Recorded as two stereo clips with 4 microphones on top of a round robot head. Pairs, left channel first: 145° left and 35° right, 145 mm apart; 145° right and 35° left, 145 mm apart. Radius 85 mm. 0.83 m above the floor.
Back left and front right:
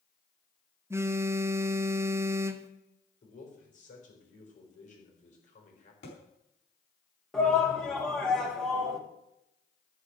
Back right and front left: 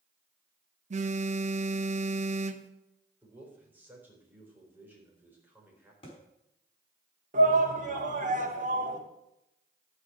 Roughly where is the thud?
Behind.